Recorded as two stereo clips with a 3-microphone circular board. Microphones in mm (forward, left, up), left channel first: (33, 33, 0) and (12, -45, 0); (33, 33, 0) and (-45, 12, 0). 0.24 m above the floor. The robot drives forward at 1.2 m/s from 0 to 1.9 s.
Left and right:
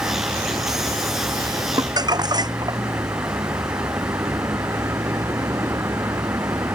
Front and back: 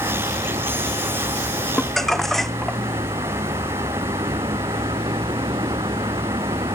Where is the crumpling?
70° right.